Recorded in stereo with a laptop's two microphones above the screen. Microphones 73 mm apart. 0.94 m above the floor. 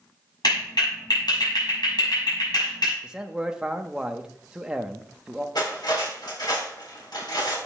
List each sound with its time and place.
0.4 s a clap: 85° left, 6.5 m
3.0 s a man speaking: 10° right (ahead or behind), 0.8 m
5.5 s cutlery clinking: 85° left, 3.5 m